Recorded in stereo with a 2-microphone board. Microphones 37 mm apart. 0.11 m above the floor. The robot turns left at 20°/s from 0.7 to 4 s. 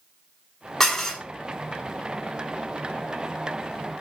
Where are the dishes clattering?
10° left (ahead or behind), 0.7 m; by 1.2 s 15° left (ahead or behind), 0.7 m.